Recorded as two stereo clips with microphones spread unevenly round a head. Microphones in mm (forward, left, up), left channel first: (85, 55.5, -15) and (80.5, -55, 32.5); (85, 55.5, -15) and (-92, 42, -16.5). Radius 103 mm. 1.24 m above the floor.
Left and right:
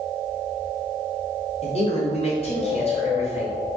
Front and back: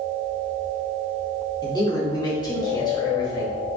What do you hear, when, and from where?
1.6 s a man speaking: 70° left, 2.5 m